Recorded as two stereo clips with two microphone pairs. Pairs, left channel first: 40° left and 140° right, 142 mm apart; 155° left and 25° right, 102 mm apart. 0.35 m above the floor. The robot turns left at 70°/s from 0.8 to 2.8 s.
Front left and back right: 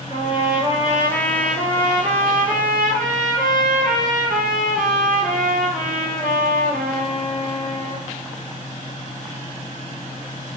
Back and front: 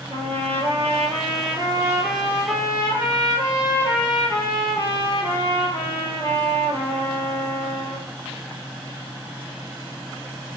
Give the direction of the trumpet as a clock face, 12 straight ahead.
1 o'clock.